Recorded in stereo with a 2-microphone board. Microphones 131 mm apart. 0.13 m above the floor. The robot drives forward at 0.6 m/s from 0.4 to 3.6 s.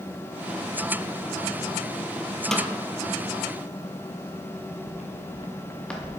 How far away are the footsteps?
About 1.5 m.